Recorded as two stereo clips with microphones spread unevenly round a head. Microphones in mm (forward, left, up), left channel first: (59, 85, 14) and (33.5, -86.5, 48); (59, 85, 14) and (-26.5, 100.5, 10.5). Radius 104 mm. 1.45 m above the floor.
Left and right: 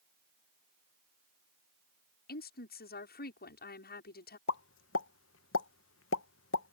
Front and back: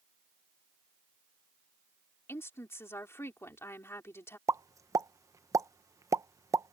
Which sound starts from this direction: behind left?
A pop, at 4.5 s.